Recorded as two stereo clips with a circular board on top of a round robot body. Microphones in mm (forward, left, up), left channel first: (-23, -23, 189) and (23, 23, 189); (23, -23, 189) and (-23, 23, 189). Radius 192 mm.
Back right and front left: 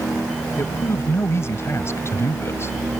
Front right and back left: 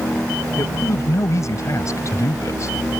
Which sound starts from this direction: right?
A man speaking, at 0.6 s.